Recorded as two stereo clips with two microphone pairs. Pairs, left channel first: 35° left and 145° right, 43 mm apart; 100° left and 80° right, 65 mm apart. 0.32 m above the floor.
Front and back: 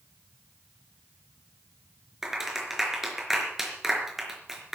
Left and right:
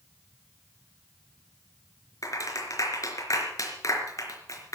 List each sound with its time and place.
2.2 s a clap: 130° left, 4 m